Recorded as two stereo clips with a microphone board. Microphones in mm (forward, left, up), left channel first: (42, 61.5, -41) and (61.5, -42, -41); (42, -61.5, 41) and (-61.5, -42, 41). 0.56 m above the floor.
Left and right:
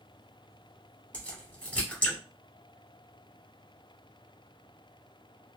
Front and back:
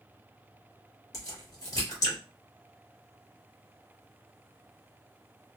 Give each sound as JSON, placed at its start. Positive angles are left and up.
{"t": 1.1, "sound": "a crack", "azimuth_deg": 25, "distance_m": 1.6}